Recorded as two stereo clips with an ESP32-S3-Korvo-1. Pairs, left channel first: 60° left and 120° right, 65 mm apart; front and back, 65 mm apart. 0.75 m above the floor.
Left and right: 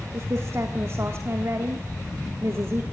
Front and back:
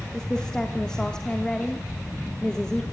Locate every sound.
0.1 s a woman speaking: 80° right, 1.6 m